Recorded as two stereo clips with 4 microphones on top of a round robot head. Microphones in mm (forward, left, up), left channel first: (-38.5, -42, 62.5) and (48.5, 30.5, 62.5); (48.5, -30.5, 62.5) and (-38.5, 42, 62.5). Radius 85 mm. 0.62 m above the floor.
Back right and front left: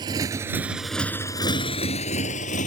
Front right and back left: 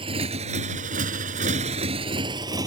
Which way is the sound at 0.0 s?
95° left.